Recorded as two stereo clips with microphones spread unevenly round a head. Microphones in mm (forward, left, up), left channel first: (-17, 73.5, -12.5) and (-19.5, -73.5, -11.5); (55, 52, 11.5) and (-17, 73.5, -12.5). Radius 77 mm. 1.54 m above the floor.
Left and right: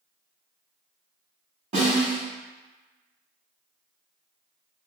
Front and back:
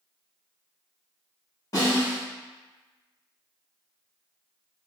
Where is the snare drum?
45° right, 1.5 m.